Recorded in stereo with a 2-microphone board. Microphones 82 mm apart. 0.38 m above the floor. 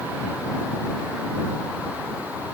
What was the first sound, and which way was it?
Only background noise.